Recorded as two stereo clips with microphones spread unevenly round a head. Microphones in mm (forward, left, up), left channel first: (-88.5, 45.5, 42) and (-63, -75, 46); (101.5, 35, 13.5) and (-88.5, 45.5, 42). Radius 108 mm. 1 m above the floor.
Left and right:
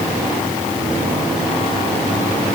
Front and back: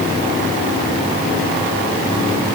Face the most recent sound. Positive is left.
No sound to turn to.